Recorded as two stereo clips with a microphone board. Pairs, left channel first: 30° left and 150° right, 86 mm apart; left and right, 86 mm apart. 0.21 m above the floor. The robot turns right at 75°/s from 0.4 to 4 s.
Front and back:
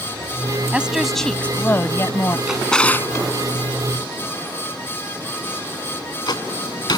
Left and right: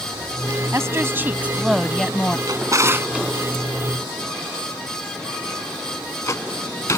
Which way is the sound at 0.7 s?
85° right.